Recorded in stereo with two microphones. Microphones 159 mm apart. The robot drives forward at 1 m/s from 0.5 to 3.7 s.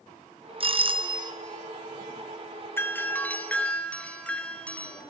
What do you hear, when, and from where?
0.6 s a doorbell: 35° right (ahead or behind), 0.9 m; by 1.3 s 30° right (ahead or behind), 1.2 m
2.8 s a doorbell: 15° left (ahead or behind), 1.0 m; by 5.0 s 10° left (ahead or behind), 1.7 m